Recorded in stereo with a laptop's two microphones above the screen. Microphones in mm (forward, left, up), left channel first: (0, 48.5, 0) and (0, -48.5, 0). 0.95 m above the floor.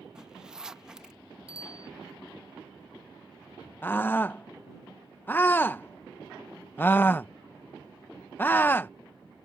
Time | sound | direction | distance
0.1 | a zipper | 5° right (ahead or behind) | ?
1.5 | a bicycle bell | 75° right (ahead or behind) | ?
3.8 | a scream | 20° left (ahead or behind) | ?